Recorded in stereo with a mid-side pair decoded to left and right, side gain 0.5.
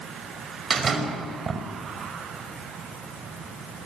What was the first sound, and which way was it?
A door slam, 40° right.